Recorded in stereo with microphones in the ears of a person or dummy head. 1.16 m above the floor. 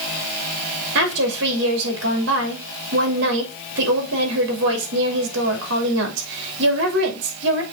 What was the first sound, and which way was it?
A woman speaking, 65° right (ahead or behind).